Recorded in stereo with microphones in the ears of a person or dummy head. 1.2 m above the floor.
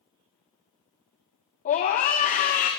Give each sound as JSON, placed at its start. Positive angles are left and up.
{"t": 1.6, "sound": "a scream", "side_deg": 45, "distance_m": 1.4}